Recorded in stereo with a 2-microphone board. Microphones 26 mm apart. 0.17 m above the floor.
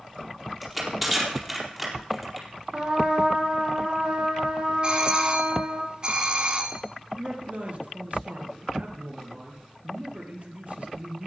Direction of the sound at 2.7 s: 30° right (ahead or behind).